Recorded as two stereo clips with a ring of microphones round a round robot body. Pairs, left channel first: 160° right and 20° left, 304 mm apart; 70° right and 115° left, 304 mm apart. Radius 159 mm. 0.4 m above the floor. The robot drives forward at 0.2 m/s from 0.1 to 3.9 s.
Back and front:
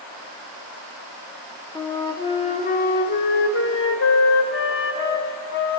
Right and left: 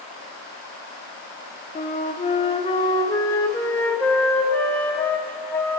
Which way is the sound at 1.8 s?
85° right.